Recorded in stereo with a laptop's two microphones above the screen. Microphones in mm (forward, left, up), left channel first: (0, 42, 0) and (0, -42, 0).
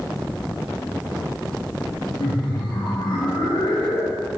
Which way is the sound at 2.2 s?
65° left (ahead or behind).